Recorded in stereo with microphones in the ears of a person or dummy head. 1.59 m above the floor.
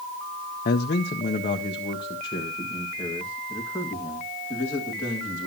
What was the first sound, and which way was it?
A man speaking, 45° left (ahead or behind).